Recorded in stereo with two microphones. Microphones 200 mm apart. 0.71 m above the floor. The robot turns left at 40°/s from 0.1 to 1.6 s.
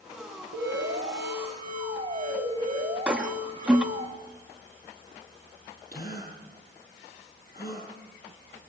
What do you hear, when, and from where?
0.5 s an alarm: 95° right, 4.5 m; by 4.1 s 140° right, 4.5 m
3.1 s a toilet flushing: 5° right (ahead or behind), 1.4 m
5.9 s a gasp: 50° left (ahead or behind), 7.5 m